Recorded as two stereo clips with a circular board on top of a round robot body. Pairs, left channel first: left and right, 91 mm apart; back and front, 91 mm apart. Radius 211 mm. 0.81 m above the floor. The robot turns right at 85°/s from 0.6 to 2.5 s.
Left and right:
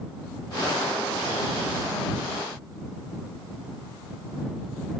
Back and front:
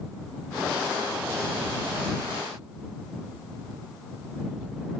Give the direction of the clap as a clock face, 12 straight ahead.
No clap in this recording.